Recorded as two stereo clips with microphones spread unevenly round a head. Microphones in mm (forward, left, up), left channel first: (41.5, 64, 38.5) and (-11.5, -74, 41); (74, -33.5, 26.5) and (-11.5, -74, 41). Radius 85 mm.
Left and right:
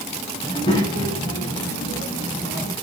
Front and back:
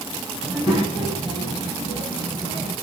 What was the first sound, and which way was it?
A child speaking, 130° left.